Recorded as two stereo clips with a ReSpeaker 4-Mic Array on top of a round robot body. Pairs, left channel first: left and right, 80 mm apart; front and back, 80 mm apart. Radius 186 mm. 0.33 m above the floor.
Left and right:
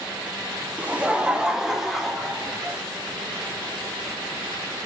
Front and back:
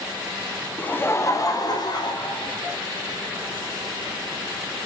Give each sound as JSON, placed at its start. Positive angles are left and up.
{"t": 0.8, "sound": "laughter", "azimuth_deg": -50, "distance_m": 0.9}